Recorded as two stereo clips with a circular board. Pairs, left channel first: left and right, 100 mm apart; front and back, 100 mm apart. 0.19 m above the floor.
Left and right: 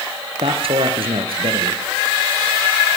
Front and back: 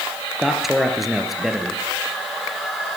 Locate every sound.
0.4 s a man speaking: 95° right, 3 m